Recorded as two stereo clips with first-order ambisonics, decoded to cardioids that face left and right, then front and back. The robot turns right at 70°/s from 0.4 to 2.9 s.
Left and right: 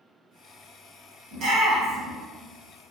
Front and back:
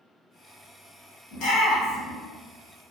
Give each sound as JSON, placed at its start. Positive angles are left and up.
{"t": 1.3, "sound": "a shout", "azimuth_deg": -40, "distance_m": 1.3}